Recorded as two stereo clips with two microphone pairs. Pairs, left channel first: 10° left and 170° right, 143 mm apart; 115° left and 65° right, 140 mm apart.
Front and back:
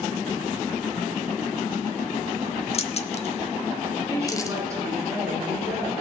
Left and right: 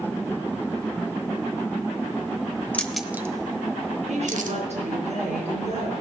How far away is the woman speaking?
About 4 m.